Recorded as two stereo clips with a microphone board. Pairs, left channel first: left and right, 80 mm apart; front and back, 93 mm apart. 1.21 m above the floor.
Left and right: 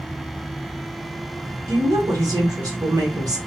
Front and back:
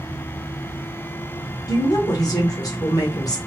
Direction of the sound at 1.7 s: 50° right.